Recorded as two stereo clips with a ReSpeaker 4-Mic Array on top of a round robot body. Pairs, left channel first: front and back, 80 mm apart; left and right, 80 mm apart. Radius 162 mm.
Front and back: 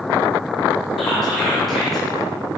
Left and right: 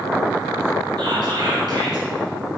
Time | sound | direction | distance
1.0 | whispering | 90° right | 1.1 m